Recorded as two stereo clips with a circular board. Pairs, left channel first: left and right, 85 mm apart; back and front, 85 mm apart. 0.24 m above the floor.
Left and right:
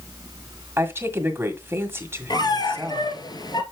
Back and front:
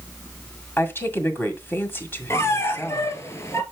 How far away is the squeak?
About 1.4 m.